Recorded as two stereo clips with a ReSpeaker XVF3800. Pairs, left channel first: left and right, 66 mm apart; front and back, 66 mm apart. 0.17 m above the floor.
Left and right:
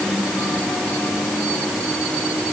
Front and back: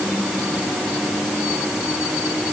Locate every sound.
Only background noise.